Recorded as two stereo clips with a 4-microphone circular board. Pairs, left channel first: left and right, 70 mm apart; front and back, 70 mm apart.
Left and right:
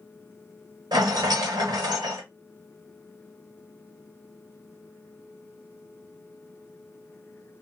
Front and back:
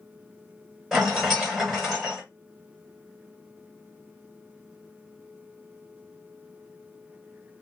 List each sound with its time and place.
0.9 s a rattle: 95° right, 1.5 m